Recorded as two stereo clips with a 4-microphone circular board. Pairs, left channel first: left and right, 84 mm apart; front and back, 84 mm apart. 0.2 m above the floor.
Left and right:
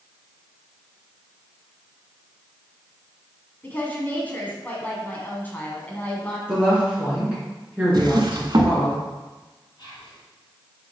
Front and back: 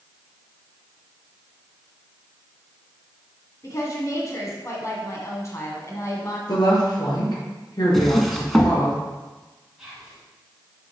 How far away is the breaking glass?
No breaking glass in this recording.